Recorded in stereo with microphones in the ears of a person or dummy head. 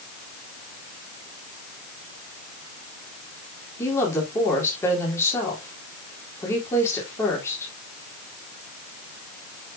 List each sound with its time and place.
3.8 s a woman speaking: 20° left (ahead or behind), 3.5 m